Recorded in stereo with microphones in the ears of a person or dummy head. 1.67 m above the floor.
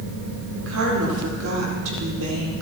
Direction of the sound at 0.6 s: 75° right (ahead or behind).